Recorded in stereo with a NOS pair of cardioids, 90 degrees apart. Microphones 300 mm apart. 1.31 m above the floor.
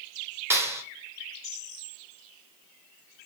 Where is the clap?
10° right, 3 m.